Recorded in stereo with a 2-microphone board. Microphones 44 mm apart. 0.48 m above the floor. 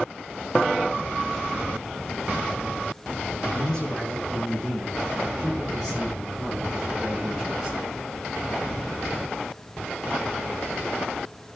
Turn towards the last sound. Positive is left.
turn(degrees=-10)  # may be behind; listen again after turning